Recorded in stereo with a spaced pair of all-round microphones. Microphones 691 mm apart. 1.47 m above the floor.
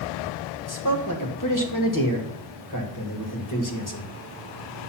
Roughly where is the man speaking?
Left.